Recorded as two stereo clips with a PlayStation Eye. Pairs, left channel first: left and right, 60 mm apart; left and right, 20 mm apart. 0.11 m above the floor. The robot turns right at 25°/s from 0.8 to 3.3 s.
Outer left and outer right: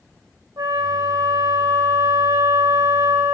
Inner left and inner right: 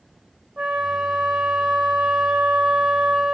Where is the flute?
100° right, 4 m; by 3.4 s 40° right, 4 m.